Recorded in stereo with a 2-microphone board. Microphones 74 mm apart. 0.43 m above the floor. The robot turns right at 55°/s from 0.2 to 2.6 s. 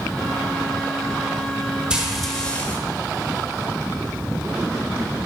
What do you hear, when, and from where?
1.9 s frying: 15° right, 1.6 m; by 2.8 s 25° left, 1.6 m